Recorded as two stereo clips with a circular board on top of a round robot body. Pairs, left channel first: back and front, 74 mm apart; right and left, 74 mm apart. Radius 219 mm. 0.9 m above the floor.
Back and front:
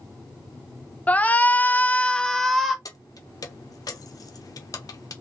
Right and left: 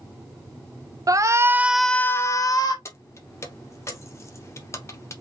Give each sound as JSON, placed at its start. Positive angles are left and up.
{"t": 1.1, "sound": "a shout", "azimuth_deg": 115, "distance_m": 0.7}
{"t": 2.9, "sound": "keys jangling", "azimuth_deg": -140, "distance_m": 0.6}